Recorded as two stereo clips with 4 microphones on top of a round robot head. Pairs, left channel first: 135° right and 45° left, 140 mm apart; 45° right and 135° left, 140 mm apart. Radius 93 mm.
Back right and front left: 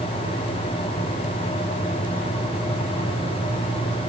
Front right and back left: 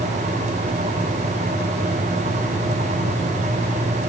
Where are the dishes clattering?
No dishes clattering in this recording.